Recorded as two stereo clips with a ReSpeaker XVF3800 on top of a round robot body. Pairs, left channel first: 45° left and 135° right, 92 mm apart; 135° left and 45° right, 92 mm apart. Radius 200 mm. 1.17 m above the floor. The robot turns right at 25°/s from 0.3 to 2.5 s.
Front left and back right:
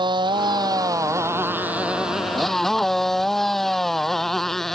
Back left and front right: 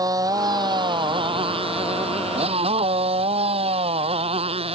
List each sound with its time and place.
0.0 s a motorcycle: 95° right; by 4.8 s 40° right